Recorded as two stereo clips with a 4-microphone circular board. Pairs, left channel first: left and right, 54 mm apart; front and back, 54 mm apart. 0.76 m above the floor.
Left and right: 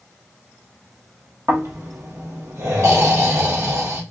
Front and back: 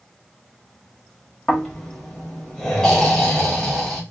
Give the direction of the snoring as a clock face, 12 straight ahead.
3 o'clock.